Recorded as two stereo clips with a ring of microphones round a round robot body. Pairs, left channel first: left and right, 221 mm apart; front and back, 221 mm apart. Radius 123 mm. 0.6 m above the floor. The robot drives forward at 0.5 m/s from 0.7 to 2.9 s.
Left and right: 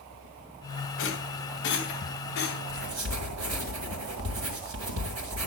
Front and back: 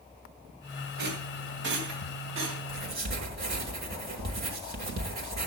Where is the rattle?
130° left, 2.5 m; by 2.6 s 140° left, 3 m.